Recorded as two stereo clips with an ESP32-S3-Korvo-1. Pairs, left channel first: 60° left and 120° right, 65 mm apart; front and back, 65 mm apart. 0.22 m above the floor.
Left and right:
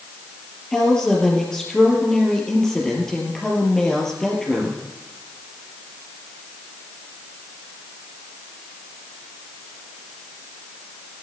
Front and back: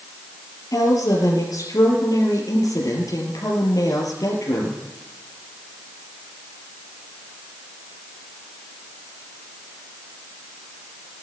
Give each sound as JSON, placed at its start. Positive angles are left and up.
{"t": 0.7, "sound": "a woman speaking", "azimuth_deg": -20, "distance_m": 4.0}